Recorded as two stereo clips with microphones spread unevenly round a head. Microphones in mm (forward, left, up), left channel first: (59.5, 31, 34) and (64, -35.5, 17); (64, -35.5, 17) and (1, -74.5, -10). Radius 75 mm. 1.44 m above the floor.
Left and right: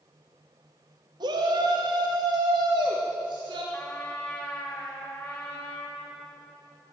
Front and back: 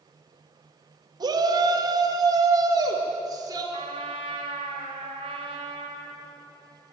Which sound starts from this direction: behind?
A trumpet, at 3.7 s.